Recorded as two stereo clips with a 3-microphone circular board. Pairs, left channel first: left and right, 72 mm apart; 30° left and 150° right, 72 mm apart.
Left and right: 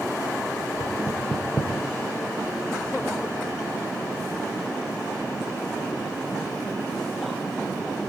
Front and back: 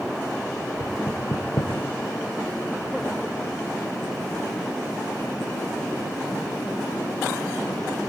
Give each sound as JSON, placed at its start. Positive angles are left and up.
{"t": 0.8, "sound": "knocking", "azimuth_deg": 45, "distance_m": 1.2}